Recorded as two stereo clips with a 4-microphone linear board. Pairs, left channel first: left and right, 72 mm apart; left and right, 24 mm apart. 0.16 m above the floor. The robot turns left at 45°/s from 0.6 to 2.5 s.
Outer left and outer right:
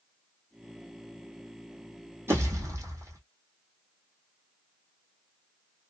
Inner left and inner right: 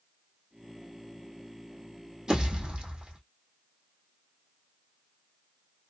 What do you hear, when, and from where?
2.3 s a pop: 35° right (ahead or behind), 1.9 m; by 3.2 s 45° right (ahead or behind), 1.9 m